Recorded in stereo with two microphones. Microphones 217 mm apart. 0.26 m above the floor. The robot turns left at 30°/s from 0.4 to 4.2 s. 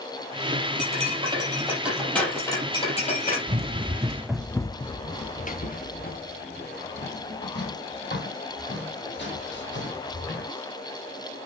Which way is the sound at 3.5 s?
35° right (ahead or behind).